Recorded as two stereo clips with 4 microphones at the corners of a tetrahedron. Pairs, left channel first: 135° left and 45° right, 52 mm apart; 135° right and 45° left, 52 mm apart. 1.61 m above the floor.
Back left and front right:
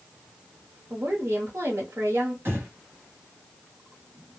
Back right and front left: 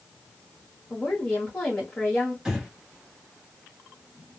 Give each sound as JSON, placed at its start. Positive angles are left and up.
{"t": 0.9, "sound": "a woman speaking", "azimuth_deg": -65, "distance_m": 1.0}
{"t": 2.5, "sound": "breathing", "azimuth_deg": -30, "distance_m": 1.0}